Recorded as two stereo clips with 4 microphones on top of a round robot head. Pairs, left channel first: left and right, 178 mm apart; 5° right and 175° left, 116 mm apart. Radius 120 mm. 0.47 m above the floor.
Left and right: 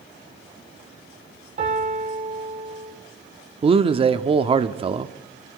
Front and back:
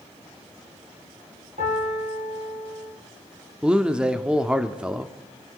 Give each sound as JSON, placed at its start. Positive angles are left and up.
{"t": 1.6, "sound": "a piano", "azimuth_deg": -135, "distance_m": 6.0}
{"t": 3.6, "sound": "a man speaking", "azimuth_deg": -110, "distance_m": 0.8}